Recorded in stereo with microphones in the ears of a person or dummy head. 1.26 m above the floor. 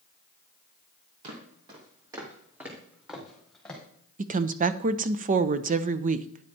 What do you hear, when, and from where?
1.2 s footsteps: 40° right (ahead or behind), 2.5 m; by 3.8 s 10° left (ahead or behind), 3.5 m
4.2 s a woman speaking: 40° right (ahead or behind), 0.6 m